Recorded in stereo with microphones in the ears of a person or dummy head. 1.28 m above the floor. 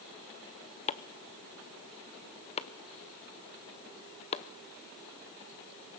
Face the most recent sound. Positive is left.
turn(degrees=35)  # may be behind; listen again after turning